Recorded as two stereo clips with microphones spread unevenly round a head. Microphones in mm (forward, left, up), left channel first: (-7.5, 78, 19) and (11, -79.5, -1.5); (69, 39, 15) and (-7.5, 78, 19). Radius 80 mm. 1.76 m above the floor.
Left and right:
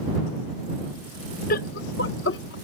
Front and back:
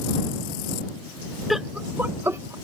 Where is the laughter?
65° left; by 2.5 s 100° left.